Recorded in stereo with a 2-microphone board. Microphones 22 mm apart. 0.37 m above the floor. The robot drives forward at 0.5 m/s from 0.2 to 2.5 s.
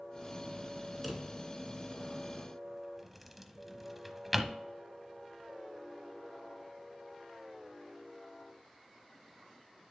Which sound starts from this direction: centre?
A drawer, at 1.0 s.